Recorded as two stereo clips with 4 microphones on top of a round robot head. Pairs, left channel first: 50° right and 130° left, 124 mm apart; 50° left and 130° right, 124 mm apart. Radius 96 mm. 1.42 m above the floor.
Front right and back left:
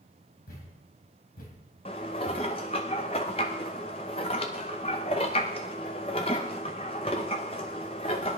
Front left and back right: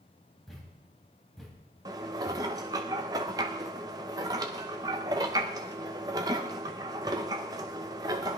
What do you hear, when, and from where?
0.5 s a thud: 40° right, 3 m
1.9 s dishes clattering: 85° right, 0.6 m